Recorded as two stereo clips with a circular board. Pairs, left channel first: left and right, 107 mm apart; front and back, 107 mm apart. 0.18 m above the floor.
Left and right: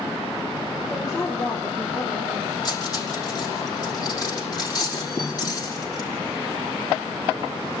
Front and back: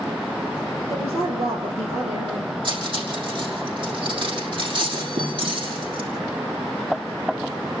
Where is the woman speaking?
175° left, 6 m; by 2.5 s 170° left, 7 m.